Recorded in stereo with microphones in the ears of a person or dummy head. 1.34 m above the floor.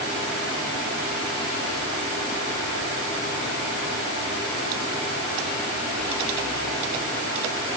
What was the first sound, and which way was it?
Only background noise.